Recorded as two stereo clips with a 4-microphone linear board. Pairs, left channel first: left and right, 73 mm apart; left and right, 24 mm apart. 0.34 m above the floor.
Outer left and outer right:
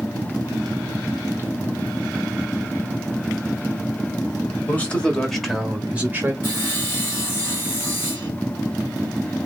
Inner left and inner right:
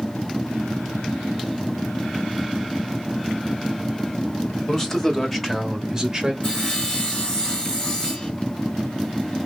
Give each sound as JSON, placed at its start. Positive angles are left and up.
{"t": 4.7, "sound": "a man speaking", "side_deg": 20, "distance_m": 1.6}
{"t": 6.4, "sound": "sawing", "side_deg": 35, "distance_m": 2.5}